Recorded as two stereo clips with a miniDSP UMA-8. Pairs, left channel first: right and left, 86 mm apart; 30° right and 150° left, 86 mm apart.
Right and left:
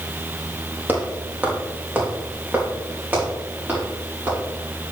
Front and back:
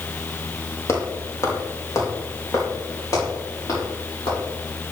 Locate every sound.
0.9 s footsteps: 25° left, 1.9 m; by 4.4 s 15° left, 7 m